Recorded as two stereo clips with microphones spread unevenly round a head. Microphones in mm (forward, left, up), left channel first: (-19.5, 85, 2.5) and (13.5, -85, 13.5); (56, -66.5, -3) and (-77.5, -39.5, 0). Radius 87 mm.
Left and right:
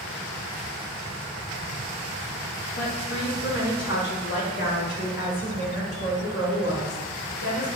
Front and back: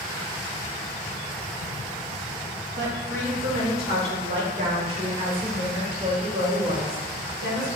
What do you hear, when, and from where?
2.8 s a woman speaking: 135° left, 3 m; by 7.7 s 125° left, 6 m